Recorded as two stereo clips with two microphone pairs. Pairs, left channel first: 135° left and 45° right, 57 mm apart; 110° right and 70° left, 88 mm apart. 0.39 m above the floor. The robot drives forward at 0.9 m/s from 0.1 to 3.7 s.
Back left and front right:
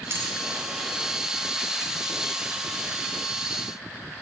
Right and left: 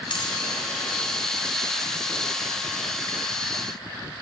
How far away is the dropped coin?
About 1.2 m.